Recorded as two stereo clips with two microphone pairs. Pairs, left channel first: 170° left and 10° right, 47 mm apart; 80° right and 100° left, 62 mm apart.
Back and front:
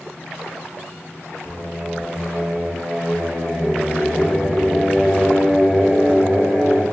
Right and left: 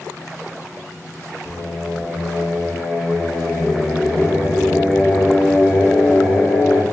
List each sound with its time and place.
1.4 s singing: 35° right, 1.9 m